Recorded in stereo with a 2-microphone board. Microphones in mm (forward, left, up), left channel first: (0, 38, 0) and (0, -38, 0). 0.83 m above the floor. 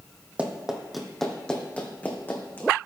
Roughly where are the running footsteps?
Centre.